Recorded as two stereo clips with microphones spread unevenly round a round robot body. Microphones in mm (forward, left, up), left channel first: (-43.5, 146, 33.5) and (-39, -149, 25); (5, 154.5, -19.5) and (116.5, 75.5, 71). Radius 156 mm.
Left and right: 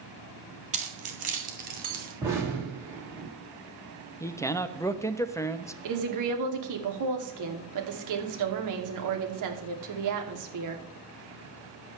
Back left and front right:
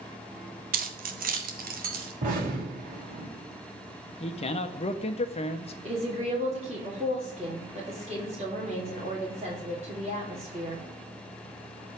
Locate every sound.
0.7 s keys jangling: 20° right, 1.6 m; by 2.1 s 25° right, 2.5 m
2.2 s an explosion: 10° right, 6.5 m
4.2 s a man speaking: 170° left, 1.0 m
5.8 s a woman speaking: 110° right, 3 m